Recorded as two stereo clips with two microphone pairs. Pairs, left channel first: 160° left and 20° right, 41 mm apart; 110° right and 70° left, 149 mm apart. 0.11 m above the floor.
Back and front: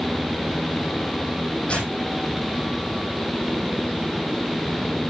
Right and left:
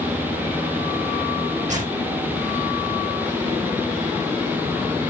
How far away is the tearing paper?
About 5 m.